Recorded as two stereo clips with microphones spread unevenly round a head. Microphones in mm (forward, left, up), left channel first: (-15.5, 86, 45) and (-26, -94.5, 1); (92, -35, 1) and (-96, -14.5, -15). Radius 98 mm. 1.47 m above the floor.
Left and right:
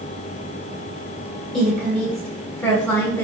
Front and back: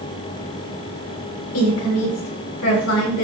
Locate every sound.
1.5 s a woman speaking: straight ahead, 7 m; by 3.3 s 10° left, 6.5 m